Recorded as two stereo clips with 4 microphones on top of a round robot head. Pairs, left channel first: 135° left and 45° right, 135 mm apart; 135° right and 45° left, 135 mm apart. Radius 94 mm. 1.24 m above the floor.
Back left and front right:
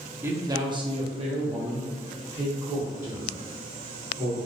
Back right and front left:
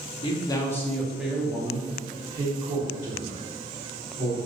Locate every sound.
0.2 s a man speaking: 110° right, 0.7 m; by 4.4 s straight ahead, 2.0 m